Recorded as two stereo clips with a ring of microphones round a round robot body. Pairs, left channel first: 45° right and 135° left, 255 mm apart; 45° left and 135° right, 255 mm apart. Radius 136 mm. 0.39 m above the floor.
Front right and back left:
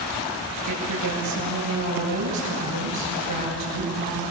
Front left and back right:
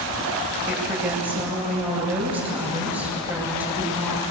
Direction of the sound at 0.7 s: 140° left.